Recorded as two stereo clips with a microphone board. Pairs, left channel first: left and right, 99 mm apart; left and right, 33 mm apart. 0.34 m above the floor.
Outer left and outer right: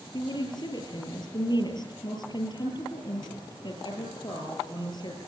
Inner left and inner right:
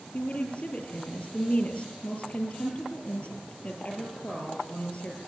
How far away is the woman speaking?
About 8.5 m.